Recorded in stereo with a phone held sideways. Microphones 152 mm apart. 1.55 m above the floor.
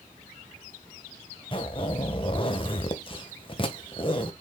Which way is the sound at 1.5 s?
35° left (ahead or behind).